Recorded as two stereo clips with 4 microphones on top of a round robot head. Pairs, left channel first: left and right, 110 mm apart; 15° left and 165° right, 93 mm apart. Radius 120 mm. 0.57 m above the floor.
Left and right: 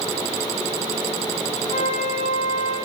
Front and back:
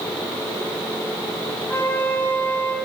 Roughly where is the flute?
Left.